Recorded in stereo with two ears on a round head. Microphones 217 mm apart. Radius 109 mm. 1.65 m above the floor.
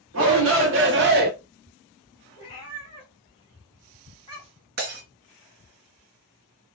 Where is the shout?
60° right (ahead or behind), 1.3 m; by 1.3 s 40° right (ahead or behind), 0.7 m.